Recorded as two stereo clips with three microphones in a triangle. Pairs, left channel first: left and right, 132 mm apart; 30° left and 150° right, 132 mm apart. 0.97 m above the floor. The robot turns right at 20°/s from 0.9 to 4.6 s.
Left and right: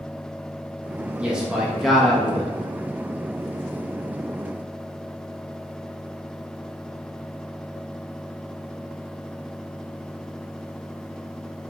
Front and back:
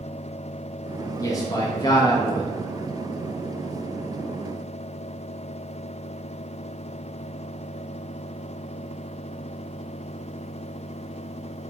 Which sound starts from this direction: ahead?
A man speaking, at 1.2 s.